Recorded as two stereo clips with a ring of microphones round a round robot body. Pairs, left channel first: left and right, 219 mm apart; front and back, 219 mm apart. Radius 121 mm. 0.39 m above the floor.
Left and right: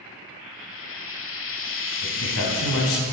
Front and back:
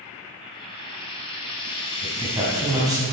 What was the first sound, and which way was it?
Frying, 65° left.